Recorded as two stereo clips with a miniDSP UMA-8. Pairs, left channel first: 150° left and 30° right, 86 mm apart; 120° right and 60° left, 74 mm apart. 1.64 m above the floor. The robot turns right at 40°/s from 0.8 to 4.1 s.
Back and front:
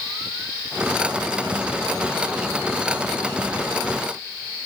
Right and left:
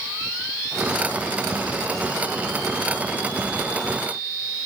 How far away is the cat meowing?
No cat meowing in this recording.